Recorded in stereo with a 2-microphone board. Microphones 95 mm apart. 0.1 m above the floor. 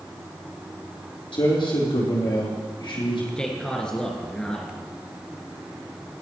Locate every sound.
1.3 s a man speaking: 65° left (ahead or behind), 3.5 m
3.4 s a man speaking: 10° left (ahead or behind), 1.5 m